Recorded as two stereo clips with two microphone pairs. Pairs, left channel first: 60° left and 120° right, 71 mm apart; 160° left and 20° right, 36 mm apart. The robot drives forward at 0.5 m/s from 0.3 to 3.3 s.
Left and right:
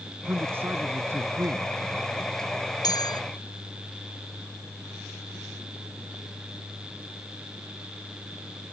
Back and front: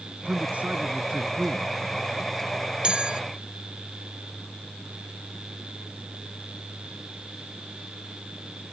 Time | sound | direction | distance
0.2 | a man speaking | 65° right | ?
2.8 | a bell | 40° left | ?